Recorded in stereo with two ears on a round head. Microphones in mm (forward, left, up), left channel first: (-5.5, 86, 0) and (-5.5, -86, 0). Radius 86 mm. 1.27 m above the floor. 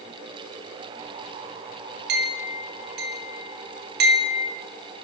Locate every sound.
2.1 s a clink: 55° right (ahead or behind), 1.4 m